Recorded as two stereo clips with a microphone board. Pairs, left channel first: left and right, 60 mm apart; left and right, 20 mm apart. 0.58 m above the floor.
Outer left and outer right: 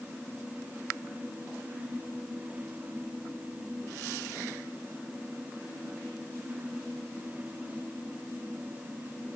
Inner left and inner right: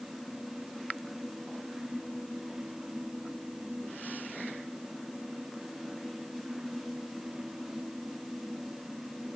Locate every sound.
Only background noise.